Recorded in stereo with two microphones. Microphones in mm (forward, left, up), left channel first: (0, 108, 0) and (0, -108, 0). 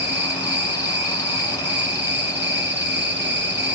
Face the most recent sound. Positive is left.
turn(degrees=-55)  # may be behind; listen again after turning